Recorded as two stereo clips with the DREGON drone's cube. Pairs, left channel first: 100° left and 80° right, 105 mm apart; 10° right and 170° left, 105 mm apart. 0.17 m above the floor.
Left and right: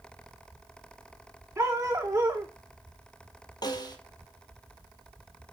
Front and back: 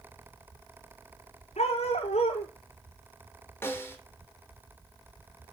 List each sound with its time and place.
1.6 s a dog barking: 15° right, 4.5 m
3.6 s a snare drum: 55° left, 3.5 m